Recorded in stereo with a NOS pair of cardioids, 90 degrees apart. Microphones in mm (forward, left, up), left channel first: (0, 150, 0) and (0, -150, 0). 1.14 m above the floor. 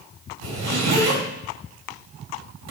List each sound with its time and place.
0.4 s a zipper: 70° right, 1.5 m